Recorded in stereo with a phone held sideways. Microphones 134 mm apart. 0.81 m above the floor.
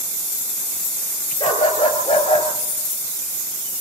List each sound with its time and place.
1.4 s a dog barking: 35° left (ahead or behind), 5.5 m; by 2.5 s 45° left (ahead or behind), 4.5 m